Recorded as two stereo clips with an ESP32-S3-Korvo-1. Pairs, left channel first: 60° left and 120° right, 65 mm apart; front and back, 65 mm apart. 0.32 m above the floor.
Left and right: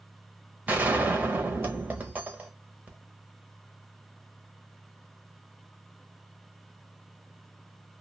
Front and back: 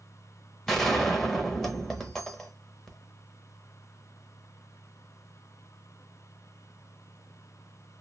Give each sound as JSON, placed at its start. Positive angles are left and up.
{"t": 0.7, "sound": "a gunshot", "azimuth_deg": -80, "distance_m": 0.7}